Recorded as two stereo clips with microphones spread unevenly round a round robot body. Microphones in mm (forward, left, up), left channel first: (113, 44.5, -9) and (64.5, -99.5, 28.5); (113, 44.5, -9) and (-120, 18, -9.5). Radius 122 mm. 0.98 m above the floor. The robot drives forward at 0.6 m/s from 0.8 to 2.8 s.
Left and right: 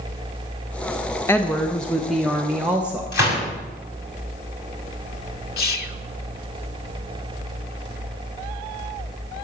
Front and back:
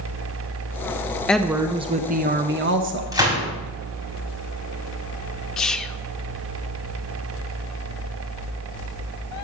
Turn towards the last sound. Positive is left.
turn(degrees=95)